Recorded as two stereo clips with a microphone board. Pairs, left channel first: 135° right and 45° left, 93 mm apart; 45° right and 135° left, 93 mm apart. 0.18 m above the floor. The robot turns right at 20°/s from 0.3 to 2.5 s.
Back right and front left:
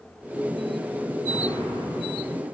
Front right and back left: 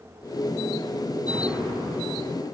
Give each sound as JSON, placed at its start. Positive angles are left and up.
{"t": 1.3, "sound": "an explosion", "azimuth_deg": 105, "distance_m": 6.0}